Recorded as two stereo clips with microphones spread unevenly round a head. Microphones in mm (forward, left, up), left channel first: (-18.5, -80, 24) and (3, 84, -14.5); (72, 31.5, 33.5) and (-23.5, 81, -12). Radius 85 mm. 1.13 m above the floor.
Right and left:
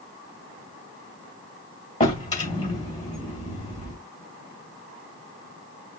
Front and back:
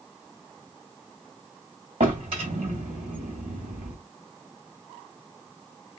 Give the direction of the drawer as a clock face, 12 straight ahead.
5 o'clock.